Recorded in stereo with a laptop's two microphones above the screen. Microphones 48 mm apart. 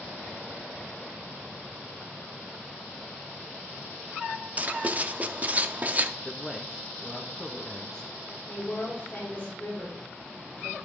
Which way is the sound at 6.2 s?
5° left (ahead or behind).